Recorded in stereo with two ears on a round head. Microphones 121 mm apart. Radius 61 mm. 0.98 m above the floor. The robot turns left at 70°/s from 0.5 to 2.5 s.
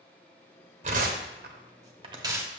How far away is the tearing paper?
About 1.0 m.